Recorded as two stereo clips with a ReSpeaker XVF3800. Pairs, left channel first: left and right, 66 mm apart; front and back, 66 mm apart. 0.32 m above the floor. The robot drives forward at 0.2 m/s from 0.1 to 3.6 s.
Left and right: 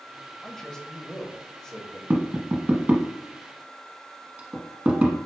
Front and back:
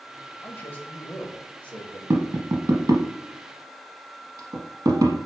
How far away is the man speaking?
About 1.0 m.